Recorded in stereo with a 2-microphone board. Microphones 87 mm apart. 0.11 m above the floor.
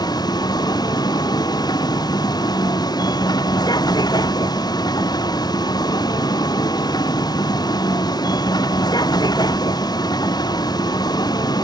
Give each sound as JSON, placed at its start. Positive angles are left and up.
{"t": 0.0, "sound": "a vehicle", "side_deg": 50}